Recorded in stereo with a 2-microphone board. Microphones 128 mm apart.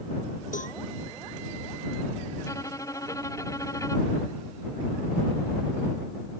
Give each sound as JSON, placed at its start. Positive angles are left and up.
{"t": 0.5, "sound": "a cowbell", "side_deg": 85}
{"t": 2.4, "sound": "a violin", "side_deg": 25}